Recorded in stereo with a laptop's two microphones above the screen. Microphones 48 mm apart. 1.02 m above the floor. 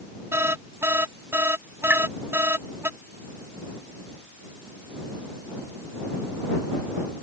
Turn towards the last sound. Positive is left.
turn(degrees=-45)  # may be behind; listen again after turning